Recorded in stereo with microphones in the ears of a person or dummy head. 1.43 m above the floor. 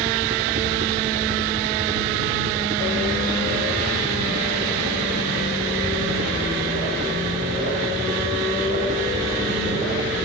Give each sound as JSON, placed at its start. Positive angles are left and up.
{"t": 0.0, "sound": "a helicopter", "side_deg": -40}